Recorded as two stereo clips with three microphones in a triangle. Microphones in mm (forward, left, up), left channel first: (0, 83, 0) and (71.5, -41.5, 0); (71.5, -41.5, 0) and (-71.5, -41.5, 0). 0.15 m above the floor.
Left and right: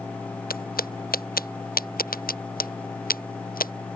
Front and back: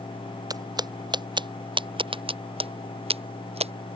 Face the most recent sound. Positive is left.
turn(degrees=135)